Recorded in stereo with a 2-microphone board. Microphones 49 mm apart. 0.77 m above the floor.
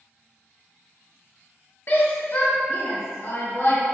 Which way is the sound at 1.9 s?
55° left (ahead or behind).